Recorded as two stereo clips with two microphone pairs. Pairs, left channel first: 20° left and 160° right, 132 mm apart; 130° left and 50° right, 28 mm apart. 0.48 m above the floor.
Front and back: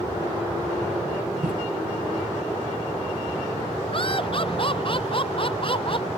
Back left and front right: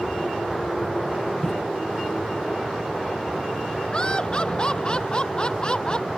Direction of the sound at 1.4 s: 160° right.